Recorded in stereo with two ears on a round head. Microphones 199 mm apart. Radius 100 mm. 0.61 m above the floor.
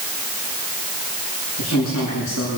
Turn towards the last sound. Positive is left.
turn(degrees=85)